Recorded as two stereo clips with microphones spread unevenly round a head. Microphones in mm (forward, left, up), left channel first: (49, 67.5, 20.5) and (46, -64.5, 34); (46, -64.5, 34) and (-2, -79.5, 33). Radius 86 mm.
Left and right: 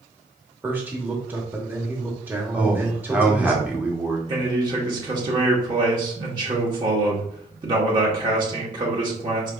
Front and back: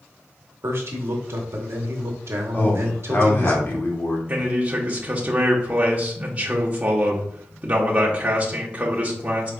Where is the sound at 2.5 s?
10° right, 1.2 m.